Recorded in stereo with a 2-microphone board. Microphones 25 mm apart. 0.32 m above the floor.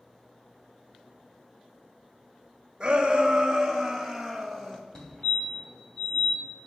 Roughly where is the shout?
Right.